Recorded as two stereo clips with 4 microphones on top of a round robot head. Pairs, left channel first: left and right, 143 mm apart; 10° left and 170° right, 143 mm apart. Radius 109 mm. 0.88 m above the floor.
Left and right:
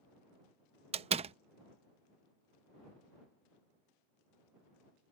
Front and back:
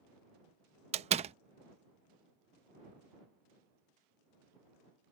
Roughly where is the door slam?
Behind right.